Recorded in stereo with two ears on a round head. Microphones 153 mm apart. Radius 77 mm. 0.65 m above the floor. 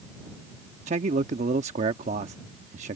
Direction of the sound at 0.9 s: 40° right (ahead or behind).